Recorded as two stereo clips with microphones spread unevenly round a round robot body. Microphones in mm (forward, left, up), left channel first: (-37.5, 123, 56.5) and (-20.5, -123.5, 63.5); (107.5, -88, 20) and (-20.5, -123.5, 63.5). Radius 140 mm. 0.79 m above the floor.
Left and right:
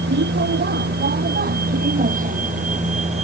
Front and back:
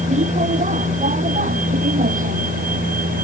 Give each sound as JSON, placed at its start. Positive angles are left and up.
{"t": 0.0, "sound": "a vehicle", "azimuth_deg": -135}